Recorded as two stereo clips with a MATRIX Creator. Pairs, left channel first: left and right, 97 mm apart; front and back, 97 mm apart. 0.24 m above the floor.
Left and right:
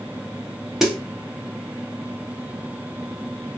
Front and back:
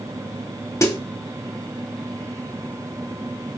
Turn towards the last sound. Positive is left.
turn(degrees=-10)